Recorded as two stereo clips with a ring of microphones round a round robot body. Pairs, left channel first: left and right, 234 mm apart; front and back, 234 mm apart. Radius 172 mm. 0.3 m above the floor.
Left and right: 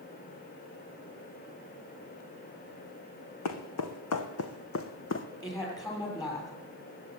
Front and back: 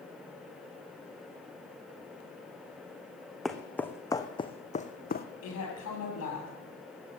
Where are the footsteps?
90° left, 1.6 m; by 5.3 s 50° left, 1.4 m.